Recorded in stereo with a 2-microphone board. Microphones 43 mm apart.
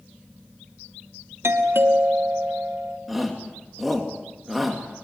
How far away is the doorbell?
About 2.5 m.